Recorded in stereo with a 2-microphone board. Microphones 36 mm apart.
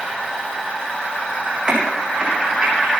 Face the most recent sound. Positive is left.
turn(degrees=-25)  # may be behind; listen again after turning